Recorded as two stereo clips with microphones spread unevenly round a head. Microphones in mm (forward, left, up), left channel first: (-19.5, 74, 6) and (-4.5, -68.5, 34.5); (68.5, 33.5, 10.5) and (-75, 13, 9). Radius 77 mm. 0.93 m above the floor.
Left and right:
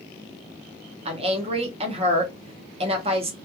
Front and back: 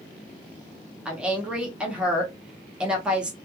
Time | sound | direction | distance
1.1 | a woman speaking | 95° right | 0.9 m